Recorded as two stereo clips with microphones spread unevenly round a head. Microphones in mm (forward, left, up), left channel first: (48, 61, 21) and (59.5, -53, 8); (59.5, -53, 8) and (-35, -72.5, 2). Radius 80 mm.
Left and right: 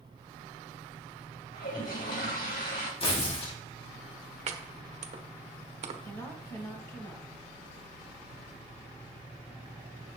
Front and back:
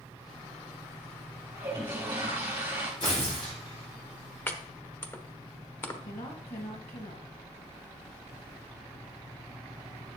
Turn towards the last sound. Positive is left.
turn(degrees=30)